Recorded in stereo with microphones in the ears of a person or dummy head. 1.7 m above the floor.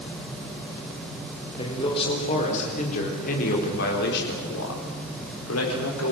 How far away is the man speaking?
About 5 m.